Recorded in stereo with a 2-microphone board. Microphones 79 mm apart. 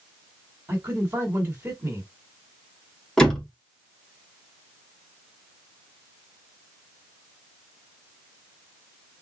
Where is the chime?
No chime in this recording.